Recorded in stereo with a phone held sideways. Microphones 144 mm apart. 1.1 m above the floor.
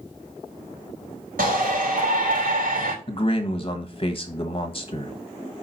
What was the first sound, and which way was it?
A shout, 75° right (ahead or behind).